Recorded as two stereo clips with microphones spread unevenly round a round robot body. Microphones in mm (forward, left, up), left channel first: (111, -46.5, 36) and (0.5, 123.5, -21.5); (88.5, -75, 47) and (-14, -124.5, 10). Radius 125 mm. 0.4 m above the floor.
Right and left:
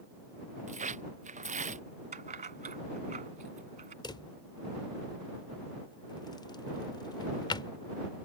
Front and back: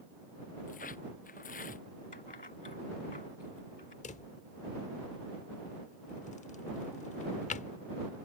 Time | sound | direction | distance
0.7 | tearing paper | 70° left | ?
2.1 | keys jangling | 70° left | ?
4.0 | a drawer | 25° left | ?